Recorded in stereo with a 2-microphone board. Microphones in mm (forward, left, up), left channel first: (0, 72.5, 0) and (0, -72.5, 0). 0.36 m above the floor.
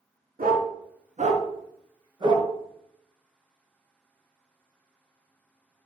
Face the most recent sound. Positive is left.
turn(degrees=-30)  # may be behind; listen again after turning